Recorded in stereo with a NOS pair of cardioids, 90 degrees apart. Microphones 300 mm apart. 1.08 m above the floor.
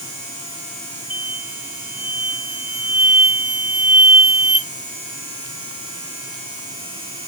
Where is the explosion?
5° right, 1.4 m.